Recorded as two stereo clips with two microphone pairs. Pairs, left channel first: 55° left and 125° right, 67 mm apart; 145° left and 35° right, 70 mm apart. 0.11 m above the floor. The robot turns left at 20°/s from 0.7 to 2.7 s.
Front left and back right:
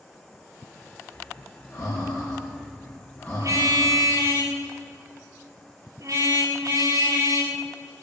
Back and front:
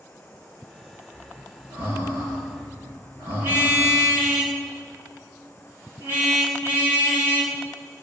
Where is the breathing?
15° left, 6.5 m; by 4.0 s 15° right, 6.5 m.